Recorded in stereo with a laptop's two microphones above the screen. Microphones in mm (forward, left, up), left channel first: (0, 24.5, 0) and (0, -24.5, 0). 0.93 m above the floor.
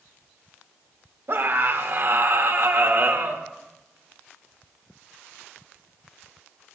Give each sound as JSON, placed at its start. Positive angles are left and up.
{"t": 1.3, "sound": "a scream", "side_deg": -55, "distance_m": 1.5}